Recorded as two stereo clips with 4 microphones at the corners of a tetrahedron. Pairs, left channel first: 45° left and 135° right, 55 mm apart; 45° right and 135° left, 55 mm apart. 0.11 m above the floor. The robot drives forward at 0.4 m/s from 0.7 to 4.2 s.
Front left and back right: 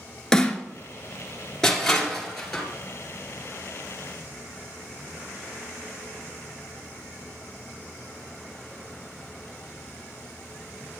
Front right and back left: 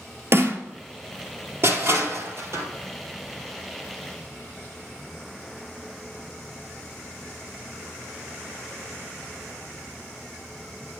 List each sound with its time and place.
0.3 s a snare drum: 120° left, 0.9 m
1.6 s crushing: 125° left, 1.9 m; by 2.6 s 135° left, 2 m